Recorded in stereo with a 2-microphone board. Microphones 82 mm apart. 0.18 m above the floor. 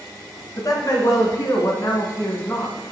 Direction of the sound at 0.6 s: 50° left (ahead or behind).